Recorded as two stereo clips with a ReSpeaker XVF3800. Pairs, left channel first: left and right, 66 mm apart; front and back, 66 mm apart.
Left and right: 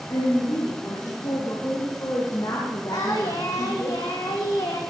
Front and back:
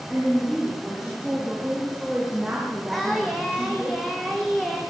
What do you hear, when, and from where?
0.1 s a woman speaking: 90° left, 7 m; by 3.9 s 120° left, 4 m
2.9 s singing: 90° left, 3.5 m